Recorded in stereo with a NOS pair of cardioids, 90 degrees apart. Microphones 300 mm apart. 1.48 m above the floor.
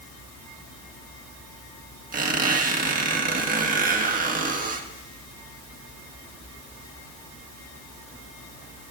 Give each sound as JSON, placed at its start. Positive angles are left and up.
{"t": 2.1, "sound": "a squeak", "azimuth_deg": -25, "distance_m": 1.9}